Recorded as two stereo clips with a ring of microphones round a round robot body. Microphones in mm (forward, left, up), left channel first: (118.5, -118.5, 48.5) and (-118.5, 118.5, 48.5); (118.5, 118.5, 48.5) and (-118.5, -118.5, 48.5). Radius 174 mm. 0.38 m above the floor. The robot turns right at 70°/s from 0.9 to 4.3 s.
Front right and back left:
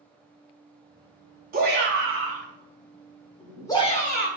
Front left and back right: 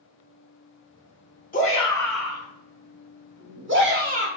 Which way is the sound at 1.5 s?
90° left.